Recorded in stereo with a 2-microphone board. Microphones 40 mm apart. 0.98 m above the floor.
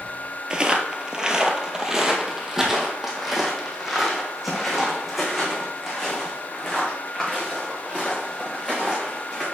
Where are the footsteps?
25° right (ahead or behind), 1.0 m; by 9.4 s 5° right (ahead or behind), 5.5 m.